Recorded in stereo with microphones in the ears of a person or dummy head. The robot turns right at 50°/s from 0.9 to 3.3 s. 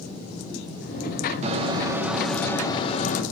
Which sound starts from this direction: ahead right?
A microwave, at 1.4 s.